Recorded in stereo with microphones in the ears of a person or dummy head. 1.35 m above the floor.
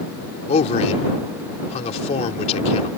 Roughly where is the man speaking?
Left.